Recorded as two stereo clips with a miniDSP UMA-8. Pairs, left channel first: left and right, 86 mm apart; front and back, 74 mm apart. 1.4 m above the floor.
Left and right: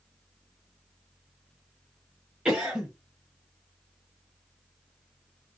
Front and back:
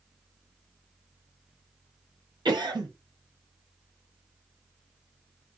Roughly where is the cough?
Behind.